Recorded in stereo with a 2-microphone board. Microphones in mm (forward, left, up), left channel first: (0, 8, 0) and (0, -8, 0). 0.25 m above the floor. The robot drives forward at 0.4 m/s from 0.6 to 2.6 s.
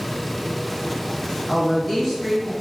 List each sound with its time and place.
1.5 s a woman speaking: 20° left (ahead or behind), 1.0 m; by 2.5 s 15° left (ahead or behind), 1.2 m